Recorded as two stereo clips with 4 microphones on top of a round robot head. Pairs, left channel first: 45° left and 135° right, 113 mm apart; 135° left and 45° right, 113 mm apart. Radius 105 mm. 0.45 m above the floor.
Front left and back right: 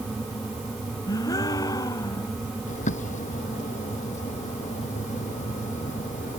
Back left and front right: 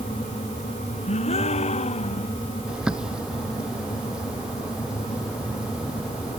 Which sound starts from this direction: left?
A gasp, at 1.1 s.